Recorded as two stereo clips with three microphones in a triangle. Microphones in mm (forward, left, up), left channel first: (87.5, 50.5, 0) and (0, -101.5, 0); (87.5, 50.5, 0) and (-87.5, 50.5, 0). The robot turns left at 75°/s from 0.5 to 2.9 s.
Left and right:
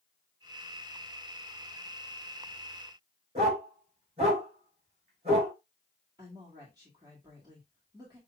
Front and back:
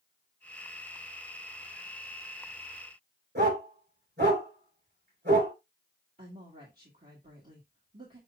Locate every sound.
3.4 s a dog barking: 175° right, 4 m
6.2 s a woman speaking: straight behind, 1.8 m